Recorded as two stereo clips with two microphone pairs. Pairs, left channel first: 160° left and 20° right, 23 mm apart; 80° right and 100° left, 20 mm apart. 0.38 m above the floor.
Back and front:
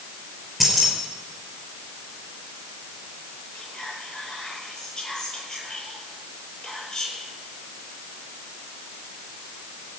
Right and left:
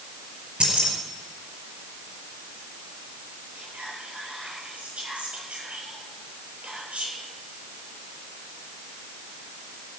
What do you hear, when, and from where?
0.6 s keys jangling: 70° left, 4.5 m
3.5 s whispering: 100° left, 8.5 m